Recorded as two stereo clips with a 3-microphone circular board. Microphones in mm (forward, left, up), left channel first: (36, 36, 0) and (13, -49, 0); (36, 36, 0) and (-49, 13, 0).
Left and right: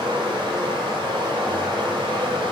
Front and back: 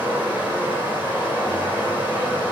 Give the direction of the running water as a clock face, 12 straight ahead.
3 o'clock.